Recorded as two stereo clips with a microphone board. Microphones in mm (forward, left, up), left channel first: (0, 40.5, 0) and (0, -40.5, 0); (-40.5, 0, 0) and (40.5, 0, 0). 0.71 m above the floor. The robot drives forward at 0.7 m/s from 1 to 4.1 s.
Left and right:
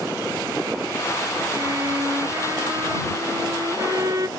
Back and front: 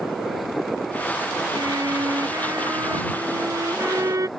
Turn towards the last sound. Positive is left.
turn(degrees=-45)